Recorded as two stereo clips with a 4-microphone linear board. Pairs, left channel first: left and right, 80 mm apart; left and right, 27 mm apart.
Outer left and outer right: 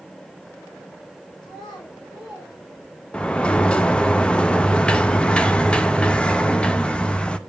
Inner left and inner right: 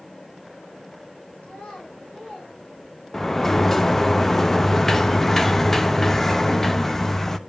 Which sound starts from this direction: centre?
A sliding door, at 3.1 s.